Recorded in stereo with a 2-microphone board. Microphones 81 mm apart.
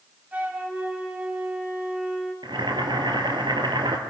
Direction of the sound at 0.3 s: 20° right (ahead or behind).